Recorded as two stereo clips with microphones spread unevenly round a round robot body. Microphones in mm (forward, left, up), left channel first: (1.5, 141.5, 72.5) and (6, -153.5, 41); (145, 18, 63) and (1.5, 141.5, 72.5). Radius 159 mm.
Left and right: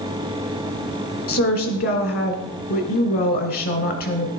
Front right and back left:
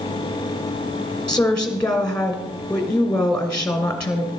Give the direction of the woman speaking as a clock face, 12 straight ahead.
11 o'clock.